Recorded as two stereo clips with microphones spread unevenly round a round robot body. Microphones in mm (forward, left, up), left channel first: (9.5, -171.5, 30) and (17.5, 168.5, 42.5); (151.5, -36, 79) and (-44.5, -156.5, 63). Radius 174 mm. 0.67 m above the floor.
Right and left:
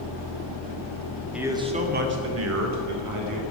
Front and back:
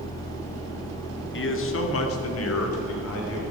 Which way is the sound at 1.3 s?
Straight ahead.